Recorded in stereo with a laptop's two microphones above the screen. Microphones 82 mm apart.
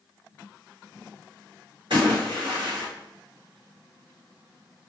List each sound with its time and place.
1.9 s a splash: 80° right, 1.9 m